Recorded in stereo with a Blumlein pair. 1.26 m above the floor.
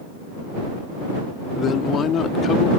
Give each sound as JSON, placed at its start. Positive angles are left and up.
{"t": 1.6, "sound": "a woman speaking", "azimuth_deg": 25}